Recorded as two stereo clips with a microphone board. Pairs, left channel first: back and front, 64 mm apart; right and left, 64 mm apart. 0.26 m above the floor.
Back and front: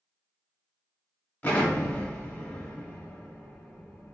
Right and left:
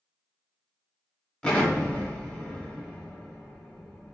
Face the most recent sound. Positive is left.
turn(degrees=-145)